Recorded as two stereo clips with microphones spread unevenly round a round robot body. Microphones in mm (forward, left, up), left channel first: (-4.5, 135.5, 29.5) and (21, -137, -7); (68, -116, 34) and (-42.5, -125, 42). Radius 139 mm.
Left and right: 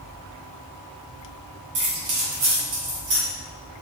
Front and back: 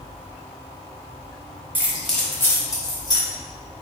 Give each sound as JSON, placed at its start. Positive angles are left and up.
{"t": 1.8, "sound": "keys jangling", "azimuth_deg": -100, "distance_m": 0.8}